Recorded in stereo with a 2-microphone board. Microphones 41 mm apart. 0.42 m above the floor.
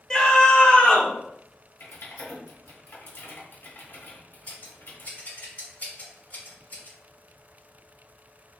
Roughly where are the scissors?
Left.